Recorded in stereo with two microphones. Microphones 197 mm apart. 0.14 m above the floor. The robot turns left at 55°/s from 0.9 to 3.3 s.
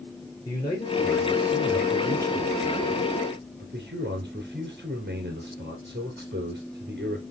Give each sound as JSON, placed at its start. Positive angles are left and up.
{"t": 0.5, "sound": "a man speaking", "azimuth_deg": 25, "distance_m": 2.0}